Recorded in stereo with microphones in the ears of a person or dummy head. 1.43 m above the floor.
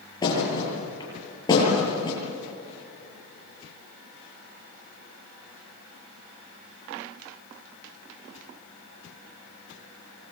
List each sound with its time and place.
0.2 s a thud: 20° left (ahead or behind), 9 m